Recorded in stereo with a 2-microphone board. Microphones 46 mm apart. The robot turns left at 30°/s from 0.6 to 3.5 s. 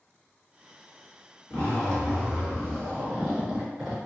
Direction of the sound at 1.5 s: 45° left.